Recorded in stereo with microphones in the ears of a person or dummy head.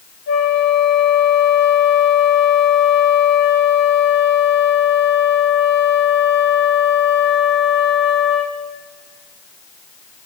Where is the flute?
45° left (ahead or behind), 1.1 m.